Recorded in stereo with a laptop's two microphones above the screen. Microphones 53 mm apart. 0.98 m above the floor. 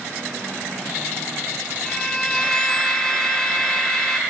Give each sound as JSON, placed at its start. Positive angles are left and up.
{"t": 1.9, "sound": "a violin", "side_deg": 15}